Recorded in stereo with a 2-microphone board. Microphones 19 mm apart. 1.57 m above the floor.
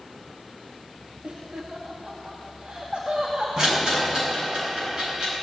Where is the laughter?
75° right (ahead or behind), 2 m.